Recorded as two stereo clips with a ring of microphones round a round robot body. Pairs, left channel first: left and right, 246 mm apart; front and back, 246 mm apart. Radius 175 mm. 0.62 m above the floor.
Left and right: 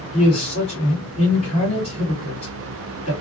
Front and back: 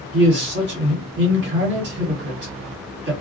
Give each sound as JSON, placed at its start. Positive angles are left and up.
{"t": 0.1, "sound": "a man speaking", "azimuth_deg": 155, "distance_m": 1.8}